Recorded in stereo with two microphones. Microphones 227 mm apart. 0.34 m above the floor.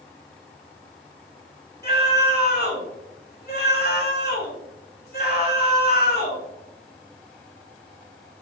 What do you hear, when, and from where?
1.8 s a scream: 45° left (ahead or behind), 3.5 m